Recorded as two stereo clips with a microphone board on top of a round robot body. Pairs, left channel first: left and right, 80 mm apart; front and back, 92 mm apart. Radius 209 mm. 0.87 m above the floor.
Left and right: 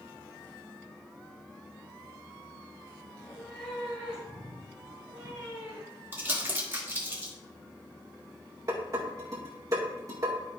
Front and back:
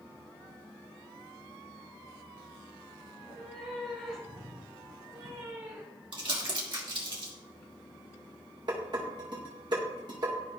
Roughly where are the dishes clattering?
Behind right.